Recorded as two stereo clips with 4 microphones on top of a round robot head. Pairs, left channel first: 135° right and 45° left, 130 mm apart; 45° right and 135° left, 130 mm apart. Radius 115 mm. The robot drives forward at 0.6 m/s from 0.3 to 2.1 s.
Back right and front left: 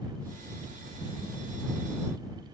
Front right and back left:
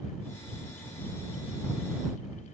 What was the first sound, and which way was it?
Only background noise.